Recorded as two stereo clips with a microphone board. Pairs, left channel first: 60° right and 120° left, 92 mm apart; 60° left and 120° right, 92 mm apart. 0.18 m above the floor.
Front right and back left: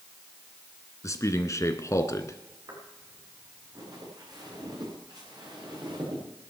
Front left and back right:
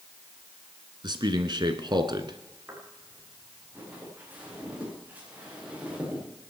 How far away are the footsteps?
About 7.5 m.